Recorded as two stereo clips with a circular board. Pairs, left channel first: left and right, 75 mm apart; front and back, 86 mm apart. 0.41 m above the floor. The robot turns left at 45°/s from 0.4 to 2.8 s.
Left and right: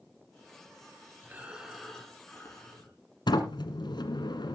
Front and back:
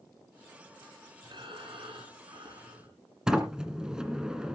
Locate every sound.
1.2 s breathing: 155° right, 5 m; by 2.9 s 135° left, 5 m
3.3 s a sliding door: 100° left, 1.8 m